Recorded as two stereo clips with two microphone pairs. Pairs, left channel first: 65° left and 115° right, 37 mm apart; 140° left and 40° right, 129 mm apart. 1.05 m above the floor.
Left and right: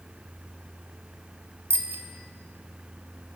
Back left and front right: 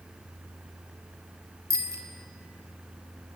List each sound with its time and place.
1.7 s a bicycle bell: 110° right, 2 m